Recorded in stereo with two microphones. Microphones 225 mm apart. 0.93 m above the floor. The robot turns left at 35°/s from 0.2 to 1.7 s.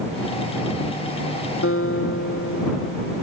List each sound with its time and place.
1.6 s a guitar: 65° left (ahead or behind); by 3.2 s 70° left (ahead or behind)